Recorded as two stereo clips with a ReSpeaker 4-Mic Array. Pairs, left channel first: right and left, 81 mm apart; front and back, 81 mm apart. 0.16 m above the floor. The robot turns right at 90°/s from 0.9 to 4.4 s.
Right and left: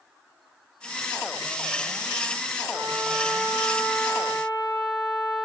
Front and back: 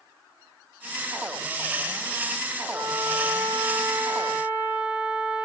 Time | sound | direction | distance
2.7 | a trumpet | 100° left | 5.5 m